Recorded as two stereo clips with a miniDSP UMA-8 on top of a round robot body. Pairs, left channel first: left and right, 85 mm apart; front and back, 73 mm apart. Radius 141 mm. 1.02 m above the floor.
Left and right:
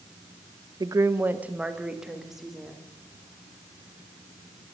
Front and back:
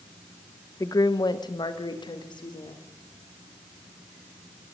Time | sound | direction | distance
0.8 | a woman speaking | 45° right | 0.7 m